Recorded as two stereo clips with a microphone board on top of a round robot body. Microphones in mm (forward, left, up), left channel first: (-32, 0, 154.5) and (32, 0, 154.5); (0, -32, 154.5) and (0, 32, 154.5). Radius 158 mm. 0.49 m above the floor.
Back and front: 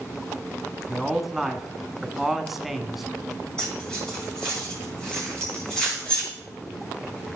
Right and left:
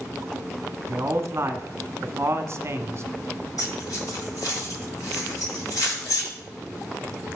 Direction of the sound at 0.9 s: 85° left.